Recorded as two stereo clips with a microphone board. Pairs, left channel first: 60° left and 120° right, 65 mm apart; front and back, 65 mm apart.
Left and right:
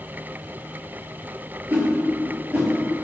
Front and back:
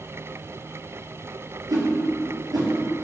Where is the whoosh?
175° left, 1.0 m.